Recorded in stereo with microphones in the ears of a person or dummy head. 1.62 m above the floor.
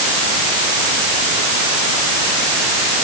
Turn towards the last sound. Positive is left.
No sound to turn to.